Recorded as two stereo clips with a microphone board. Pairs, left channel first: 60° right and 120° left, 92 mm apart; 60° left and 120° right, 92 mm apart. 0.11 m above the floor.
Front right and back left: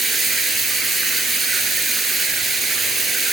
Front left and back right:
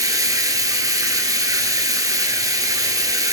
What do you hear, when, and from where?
0.0 s running water: 150° right, 1.0 m